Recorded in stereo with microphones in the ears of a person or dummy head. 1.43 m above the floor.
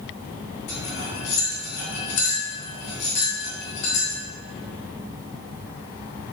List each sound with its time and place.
0.7 s cutlery clinking: 60° left (ahead or behind), 3 m